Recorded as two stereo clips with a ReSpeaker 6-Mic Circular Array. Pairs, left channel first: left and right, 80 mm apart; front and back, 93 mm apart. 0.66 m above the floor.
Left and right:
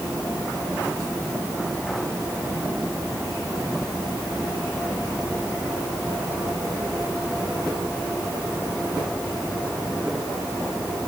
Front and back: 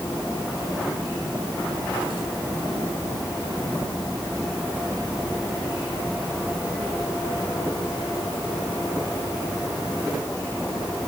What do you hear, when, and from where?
Only background noise.